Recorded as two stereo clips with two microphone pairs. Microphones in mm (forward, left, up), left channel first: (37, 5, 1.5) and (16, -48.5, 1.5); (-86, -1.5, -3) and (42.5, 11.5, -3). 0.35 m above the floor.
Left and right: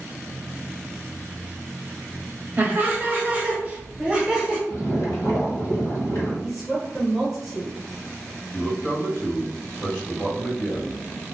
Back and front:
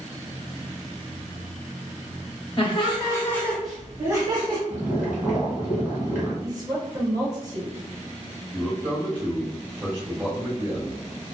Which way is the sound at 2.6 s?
155° right.